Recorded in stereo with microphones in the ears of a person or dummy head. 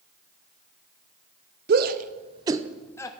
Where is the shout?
55° right (ahead or behind), 0.8 m; by 3.1 s 15° left (ahead or behind), 0.5 m.